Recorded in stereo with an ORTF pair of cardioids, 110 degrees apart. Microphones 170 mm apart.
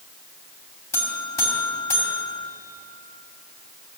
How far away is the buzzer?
About 3 m.